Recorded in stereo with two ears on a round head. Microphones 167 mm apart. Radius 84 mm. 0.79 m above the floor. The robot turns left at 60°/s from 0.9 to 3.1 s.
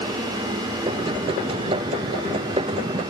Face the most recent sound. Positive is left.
No sound to turn to.